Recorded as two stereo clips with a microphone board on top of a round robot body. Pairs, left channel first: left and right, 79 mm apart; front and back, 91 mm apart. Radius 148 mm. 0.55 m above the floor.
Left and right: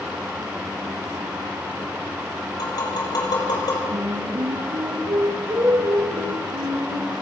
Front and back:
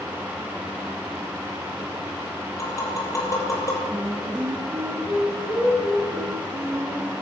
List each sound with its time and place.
2.6 s tapping: 55° left, 7 m
3.9 s singing: 105° right, 8 m